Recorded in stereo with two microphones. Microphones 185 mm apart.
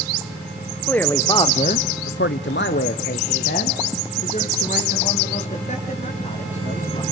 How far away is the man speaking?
About 1.3 m.